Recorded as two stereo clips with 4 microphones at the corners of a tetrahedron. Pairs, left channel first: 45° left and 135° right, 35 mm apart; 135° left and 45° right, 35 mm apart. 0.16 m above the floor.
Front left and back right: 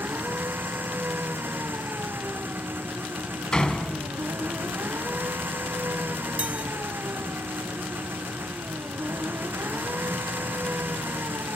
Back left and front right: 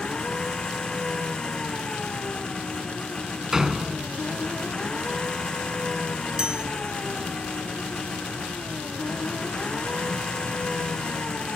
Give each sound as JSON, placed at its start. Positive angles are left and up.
{"t": 0.0, "sound": "an engine running", "azimuth_deg": -155}
{"t": 3.5, "sound": "a door slam", "azimuth_deg": 20}
{"t": 6.4, "sound": "a chime", "azimuth_deg": -100}